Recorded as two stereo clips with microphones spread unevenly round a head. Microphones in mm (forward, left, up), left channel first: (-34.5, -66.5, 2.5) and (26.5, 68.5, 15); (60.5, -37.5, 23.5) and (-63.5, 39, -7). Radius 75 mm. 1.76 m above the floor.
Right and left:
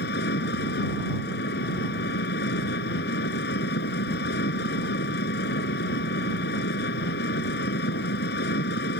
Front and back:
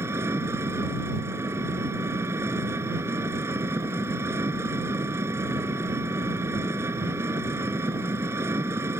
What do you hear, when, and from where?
0.0 s an engine running: 135° right